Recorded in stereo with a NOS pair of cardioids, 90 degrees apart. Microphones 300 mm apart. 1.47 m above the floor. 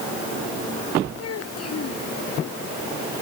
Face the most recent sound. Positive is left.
turn(degrees=50)